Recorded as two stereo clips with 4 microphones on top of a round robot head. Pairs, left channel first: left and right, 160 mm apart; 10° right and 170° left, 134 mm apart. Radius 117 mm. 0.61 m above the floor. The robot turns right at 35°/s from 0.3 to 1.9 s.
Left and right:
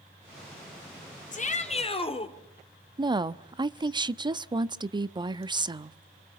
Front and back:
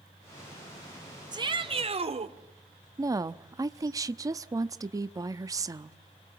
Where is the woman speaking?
135° right, 0.9 m.